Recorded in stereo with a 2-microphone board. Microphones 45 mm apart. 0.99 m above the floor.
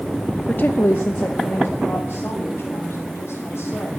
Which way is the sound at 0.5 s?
35° left (ahead or behind).